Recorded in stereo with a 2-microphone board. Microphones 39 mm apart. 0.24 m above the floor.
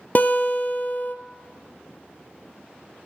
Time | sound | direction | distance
0.1 | a guitar | 45° left (ahead or behind) | 0.8 m